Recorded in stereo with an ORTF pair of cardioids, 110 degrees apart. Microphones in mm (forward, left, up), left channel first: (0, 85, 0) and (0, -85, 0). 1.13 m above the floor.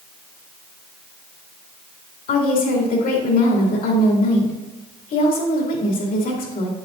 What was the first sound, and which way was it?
A woman speaking, 55° left.